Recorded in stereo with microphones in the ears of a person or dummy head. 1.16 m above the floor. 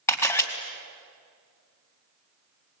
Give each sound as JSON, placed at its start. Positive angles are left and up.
{"t": 0.1, "sound": "a camera shutter", "side_deg": 15, "distance_m": 3.0}